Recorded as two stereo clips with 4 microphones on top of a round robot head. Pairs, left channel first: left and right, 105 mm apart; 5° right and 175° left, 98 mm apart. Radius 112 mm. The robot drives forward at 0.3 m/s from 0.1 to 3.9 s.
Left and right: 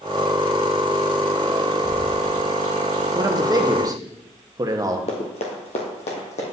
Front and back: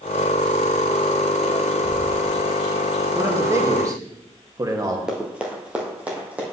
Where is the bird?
25° left, 1.6 m; by 3.0 s 35° left, 1.3 m.